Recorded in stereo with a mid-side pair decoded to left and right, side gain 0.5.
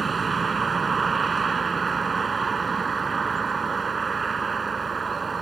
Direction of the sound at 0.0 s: 35° right.